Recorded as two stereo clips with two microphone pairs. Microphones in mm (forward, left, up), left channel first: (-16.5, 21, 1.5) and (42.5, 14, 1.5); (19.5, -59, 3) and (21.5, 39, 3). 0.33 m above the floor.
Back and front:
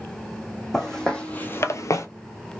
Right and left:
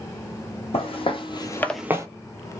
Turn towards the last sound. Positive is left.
turn(degrees=140)